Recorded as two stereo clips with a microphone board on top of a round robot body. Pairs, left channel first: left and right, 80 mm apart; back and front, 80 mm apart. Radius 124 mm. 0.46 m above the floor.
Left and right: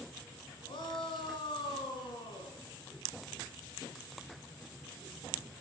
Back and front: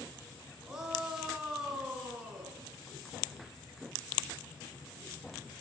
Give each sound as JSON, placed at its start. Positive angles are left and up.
{"t": 0.7, "sound": "a shout", "azimuth_deg": 80, "distance_m": 6.0}